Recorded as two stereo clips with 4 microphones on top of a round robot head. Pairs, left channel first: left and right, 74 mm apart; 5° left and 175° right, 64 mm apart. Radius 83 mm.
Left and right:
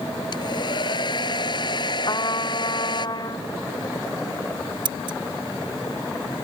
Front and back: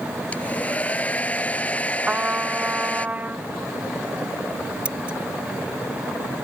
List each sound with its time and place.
0.3 s a hair dryer: 75° left
2.1 s a trumpet: 120° left
4.8 s scissors: 100° right